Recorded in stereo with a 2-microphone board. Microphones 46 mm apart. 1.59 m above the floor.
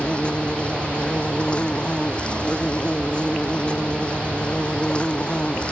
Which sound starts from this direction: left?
An insect, at 0.0 s.